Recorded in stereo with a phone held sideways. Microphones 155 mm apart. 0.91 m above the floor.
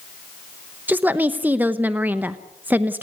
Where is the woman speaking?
10° right (ahead or behind), 0.9 m.